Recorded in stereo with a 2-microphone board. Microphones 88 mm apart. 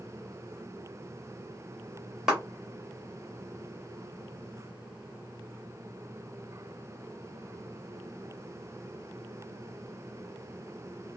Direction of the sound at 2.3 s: 10° right (ahead or behind).